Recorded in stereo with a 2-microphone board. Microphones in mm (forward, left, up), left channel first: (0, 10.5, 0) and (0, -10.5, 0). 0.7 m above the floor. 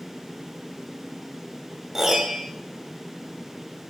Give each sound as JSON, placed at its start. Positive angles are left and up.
{"t": 1.9, "sound": "a piano", "side_deg": -20, "distance_m": 1.5}